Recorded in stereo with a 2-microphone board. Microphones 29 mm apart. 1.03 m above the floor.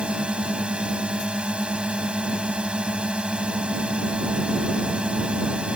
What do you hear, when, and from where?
0.0 s a drone: 45° right (ahead or behind)